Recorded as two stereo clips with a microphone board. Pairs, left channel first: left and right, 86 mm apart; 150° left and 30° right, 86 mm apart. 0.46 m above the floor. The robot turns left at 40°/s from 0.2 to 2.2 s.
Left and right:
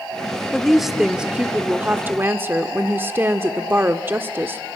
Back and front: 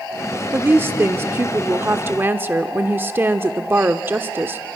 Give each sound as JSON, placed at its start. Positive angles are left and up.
{"t": 0.5, "sound": "a woman speaking", "azimuth_deg": 5, "distance_m": 0.9}